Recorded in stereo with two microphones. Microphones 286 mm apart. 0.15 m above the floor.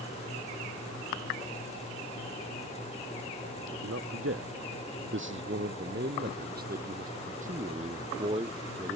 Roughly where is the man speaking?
Right.